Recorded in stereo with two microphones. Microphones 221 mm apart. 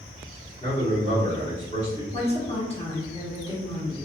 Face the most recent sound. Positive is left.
turn(degrees=25)  # may be behind; listen again after turning